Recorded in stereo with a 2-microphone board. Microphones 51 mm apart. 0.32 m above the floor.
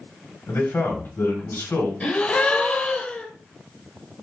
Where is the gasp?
25° left (ahead or behind), 0.8 m.